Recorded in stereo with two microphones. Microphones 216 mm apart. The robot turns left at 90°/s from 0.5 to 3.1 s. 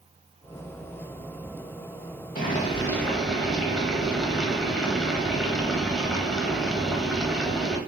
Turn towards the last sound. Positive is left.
turn(degrees=0)